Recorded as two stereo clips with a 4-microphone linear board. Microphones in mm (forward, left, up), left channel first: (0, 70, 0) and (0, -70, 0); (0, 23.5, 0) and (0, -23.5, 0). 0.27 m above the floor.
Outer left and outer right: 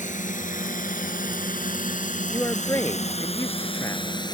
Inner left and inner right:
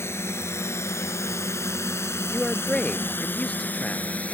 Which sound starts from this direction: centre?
A man speaking, at 2.3 s.